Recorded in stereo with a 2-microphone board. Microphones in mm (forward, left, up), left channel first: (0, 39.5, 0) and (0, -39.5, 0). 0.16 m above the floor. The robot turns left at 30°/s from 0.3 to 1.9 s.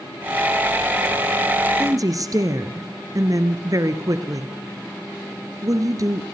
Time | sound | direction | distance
1.8 | a woman speaking | 45° right (ahead or behind) | 2 m